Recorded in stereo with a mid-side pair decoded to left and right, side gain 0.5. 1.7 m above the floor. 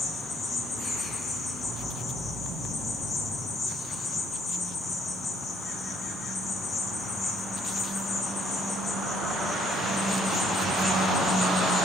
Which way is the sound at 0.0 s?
55° left.